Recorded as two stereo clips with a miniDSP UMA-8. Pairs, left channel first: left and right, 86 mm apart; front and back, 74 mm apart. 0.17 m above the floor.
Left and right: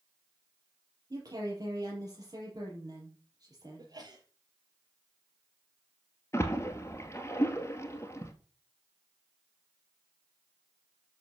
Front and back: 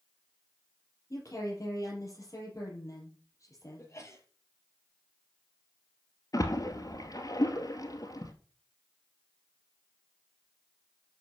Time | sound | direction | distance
1.1 | a woman speaking | 45° right | 5 m
3.8 | a sneeze | 50° right | 4.5 m
6.3 | a splash | 35° left | 1.7 m